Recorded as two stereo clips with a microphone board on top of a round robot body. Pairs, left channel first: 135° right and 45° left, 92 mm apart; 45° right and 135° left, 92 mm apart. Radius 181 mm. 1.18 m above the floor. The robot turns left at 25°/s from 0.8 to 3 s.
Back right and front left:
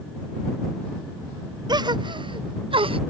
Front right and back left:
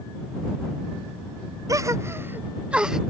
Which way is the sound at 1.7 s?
85° left.